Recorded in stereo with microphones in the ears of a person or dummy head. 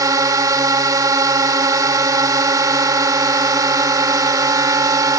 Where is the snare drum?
No snare drum in this recording.